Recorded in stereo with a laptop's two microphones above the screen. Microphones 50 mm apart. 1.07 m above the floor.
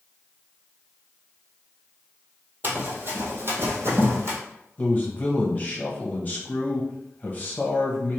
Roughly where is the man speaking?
Left.